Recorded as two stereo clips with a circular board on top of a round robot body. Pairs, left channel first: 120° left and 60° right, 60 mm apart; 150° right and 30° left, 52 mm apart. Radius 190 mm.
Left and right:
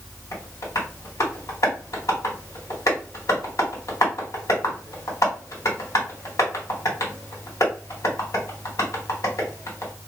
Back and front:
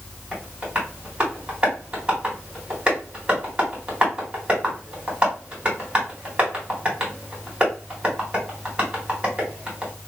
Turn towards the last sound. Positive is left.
turn(degrees=100)